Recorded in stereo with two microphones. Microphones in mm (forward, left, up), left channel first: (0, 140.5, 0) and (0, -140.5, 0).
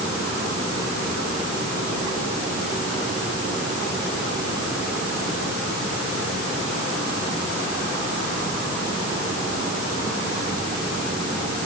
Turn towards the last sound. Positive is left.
No sound to turn to.